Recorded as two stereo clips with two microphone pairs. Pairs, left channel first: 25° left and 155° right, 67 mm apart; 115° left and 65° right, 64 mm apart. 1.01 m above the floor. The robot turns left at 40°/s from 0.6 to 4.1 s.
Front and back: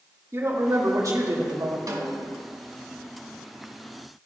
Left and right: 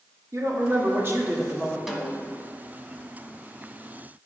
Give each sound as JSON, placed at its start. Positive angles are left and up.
{"t": 0.3, "sound": "a woman speaking", "azimuth_deg": -100, "distance_m": 1.8}
{"t": 1.9, "sound": "a snare drum", "azimuth_deg": -155, "distance_m": 1.3}